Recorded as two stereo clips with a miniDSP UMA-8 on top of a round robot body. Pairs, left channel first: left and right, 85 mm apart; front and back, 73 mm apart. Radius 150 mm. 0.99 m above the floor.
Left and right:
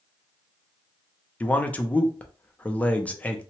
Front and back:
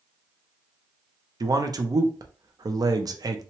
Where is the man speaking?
160° left, 0.6 m.